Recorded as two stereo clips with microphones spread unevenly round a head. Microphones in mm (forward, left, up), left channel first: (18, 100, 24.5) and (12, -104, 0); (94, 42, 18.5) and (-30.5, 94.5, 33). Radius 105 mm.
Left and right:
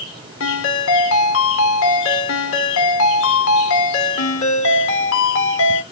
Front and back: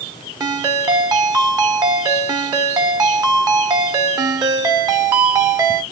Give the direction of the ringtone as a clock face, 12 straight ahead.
9 o'clock.